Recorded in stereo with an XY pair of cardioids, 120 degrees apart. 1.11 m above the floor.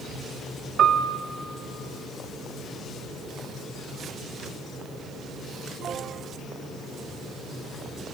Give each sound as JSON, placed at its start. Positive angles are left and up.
{"t": 0.8, "sound": "a piano", "azimuth_deg": -40, "distance_m": 1.9}